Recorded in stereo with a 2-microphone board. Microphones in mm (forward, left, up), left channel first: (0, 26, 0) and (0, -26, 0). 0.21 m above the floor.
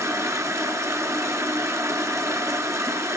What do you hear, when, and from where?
0.0 s running water: 70° right (ahead or behind), 0.8 m